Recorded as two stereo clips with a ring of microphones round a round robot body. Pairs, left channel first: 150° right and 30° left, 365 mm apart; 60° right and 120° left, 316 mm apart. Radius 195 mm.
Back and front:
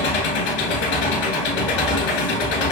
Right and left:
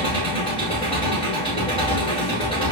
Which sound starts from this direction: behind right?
An engine running, at 0.0 s.